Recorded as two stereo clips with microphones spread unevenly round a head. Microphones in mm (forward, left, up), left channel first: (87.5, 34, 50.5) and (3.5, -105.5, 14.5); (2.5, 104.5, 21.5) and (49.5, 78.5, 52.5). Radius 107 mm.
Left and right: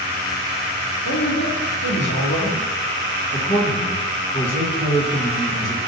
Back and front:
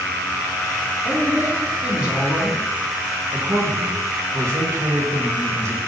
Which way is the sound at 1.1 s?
50° left.